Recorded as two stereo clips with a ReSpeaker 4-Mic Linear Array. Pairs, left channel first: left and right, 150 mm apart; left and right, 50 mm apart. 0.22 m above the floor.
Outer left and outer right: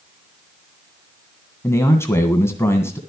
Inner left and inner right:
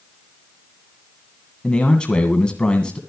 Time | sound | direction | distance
1.6 | a man speaking | 20° left (ahead or behind) | 2.0 m